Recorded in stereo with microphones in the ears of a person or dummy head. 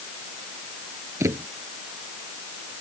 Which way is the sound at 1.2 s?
20° right (ahead or behind).